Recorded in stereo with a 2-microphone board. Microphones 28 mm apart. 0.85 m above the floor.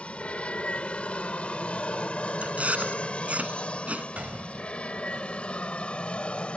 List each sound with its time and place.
0.0 s an aircraft: 45° left (ahead or behind); by 6.6 s 40° left (ahead or behind)
2.4 s chewing: 55° right (ahead or behind)
4.2 s a gunshot: 55° right (ahead or behind)